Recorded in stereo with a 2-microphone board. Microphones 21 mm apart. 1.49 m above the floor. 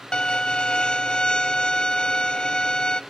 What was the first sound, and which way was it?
A violin, 50° left (ahead or behind).